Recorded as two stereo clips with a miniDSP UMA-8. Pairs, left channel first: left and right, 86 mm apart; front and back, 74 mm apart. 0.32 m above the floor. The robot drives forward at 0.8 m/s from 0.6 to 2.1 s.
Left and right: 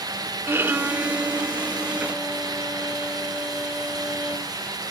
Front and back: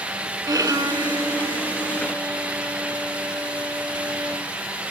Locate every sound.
0.5 s a violin: 150° right, 0.6 m; by 4.5 s 170° right, 1.7 m